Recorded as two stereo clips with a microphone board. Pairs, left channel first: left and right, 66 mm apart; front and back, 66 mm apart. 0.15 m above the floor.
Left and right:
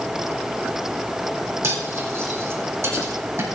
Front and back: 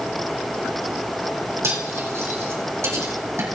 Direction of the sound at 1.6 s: 135° right.